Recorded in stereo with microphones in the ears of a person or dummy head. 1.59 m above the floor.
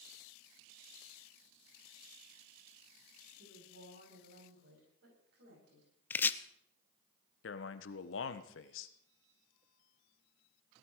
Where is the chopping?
15° left (ahead or behind), 0.7 m.